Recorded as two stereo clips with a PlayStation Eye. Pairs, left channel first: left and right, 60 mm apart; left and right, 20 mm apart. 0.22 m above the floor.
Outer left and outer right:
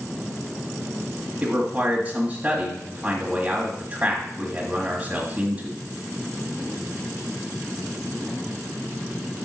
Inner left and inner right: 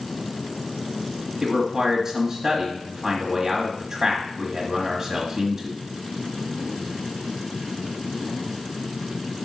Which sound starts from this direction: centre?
A man speaking, at 1.4 s.